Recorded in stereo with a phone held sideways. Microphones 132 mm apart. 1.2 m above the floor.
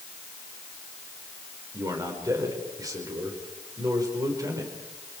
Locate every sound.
1.7 s a man speaking: 25° right (ahead or behind), 4.5 m